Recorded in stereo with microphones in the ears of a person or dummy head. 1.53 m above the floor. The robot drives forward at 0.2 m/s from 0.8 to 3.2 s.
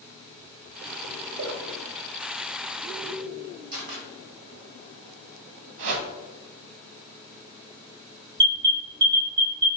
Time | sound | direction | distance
1.4 | a splash | 70° right (ahead or behind) | 0.6 m
3.7 | a camera shutter | 45° right (ahead or behind) | 0.9 m
5.8 | a whoosh | 70° right (ahead or behind) | 0.7 m
8.4 | an alarm | 20° right (ahead or behind) | 1.0 m